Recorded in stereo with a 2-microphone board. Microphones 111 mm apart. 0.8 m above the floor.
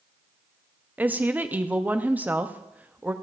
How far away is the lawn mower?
I don't hear a lawn mower.